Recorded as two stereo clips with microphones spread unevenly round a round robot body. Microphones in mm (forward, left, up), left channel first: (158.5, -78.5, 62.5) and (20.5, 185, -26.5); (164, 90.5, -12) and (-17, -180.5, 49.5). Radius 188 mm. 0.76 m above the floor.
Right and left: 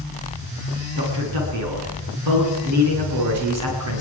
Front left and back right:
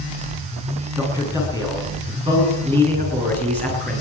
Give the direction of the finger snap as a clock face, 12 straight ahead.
I don't hear a finger snap.